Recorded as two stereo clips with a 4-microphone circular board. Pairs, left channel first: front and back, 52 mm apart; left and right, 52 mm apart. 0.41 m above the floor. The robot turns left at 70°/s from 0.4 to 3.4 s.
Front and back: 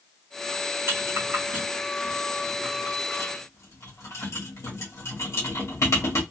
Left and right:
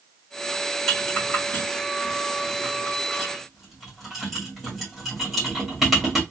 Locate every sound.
0.9 s a rattle: 175° left, 1.7 m; by 6.2 s straight ahead, 1.7 m